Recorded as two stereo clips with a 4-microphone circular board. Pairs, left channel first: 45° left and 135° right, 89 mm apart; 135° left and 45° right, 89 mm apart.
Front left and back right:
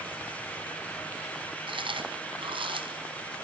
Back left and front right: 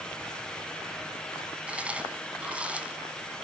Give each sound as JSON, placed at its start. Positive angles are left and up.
{"t": 1.7, "sound": "chewing", "azimuth_deg": -120, "distance_m": 3.0}